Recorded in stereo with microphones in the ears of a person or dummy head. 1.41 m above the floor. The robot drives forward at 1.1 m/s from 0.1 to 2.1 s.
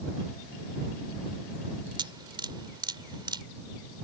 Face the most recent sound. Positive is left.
turn(degrees=-20)  # may be behind; listen again after turning